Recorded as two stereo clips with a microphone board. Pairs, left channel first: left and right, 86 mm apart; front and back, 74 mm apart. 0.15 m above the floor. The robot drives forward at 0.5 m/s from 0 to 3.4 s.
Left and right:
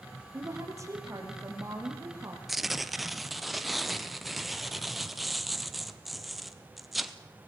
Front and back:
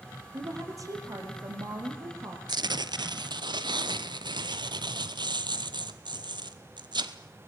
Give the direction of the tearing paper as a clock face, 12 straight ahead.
6 o'clock.